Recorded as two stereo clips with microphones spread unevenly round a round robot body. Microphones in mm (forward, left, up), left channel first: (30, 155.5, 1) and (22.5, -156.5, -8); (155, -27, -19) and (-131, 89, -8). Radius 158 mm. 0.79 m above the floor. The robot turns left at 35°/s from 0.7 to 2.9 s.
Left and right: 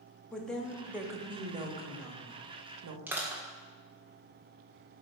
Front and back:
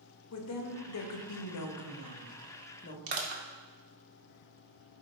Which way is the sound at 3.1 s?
175° right.